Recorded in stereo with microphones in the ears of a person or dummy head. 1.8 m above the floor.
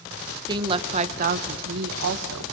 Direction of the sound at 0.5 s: 25° right (ahead or behind).